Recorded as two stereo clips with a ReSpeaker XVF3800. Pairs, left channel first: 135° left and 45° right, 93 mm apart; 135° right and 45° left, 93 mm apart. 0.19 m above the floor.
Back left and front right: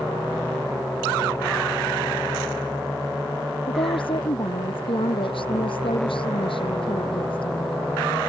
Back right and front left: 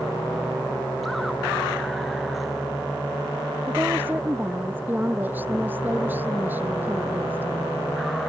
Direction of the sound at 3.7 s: 115° left.